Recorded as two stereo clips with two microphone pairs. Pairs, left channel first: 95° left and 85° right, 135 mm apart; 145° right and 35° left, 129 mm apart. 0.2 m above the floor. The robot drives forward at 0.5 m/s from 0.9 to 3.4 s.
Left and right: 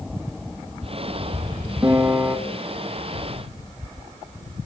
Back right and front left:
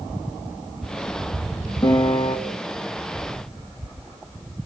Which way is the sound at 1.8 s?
135° right.